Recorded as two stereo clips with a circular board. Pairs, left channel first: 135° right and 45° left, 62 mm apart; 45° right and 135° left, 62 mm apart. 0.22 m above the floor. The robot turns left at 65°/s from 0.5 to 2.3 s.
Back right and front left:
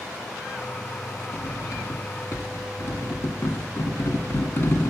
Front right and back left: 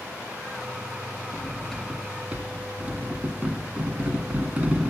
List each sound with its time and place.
1.3 s cutlery clinking: 100° right, 1.2 m; by 4.9 s 165° right, 1.2 m